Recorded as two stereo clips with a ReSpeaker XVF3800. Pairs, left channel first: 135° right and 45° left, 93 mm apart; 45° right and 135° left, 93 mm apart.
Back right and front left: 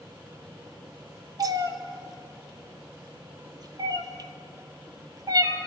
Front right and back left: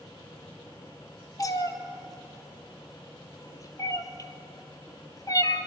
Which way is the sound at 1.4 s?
Straight ahead.